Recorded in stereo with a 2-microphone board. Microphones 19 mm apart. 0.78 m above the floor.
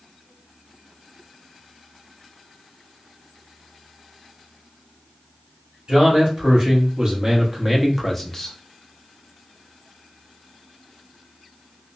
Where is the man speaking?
55° right (ahead or behind), 1.8 m; by 8.6 s 25° left (ahead or behind), 0.7 m.